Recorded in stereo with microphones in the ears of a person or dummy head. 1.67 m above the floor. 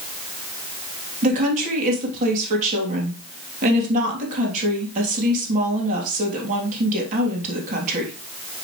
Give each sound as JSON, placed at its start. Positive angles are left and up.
{"t": 1.2, "sound": "a woman speaking", "side_deg": -40, "distance_m": 3.0}